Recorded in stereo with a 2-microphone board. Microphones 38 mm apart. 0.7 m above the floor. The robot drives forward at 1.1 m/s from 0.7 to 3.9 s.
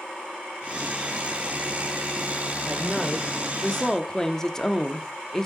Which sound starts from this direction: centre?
A woman speaking, at 2.7 s.